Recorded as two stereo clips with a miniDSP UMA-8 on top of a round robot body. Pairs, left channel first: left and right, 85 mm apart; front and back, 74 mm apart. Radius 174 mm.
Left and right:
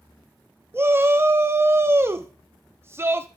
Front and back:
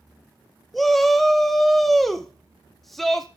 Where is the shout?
85° right, 0.8 m.